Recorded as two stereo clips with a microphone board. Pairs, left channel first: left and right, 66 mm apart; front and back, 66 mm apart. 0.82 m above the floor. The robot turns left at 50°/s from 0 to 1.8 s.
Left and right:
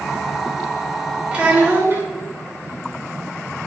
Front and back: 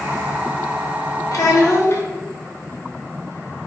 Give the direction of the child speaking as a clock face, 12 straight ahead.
1 o'clock.